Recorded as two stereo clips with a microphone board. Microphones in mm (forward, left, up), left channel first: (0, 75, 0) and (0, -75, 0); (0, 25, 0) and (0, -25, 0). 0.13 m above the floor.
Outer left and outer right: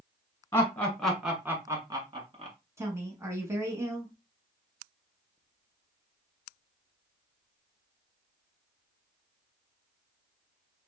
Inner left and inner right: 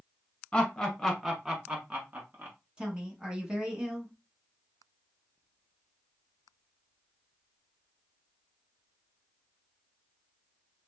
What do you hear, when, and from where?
0.5 s laughter: 15° left (ahead or behind), 1.3 m; by 2.6 s 40° right (ahead or behind), 1.4 m
2.8 s a woman speaking: 15° right (ahead or behind), 1.0 m